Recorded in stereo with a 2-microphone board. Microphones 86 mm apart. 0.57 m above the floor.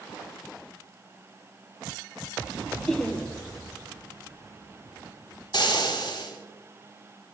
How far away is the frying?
About 4.5 m.